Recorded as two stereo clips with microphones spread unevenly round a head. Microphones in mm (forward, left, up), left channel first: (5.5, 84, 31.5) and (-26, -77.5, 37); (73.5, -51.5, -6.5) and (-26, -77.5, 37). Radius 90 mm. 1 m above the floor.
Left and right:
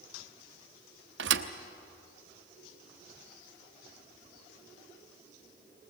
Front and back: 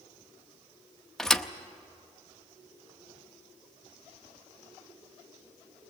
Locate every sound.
1.2 s a thud: 80° right, 0.8 m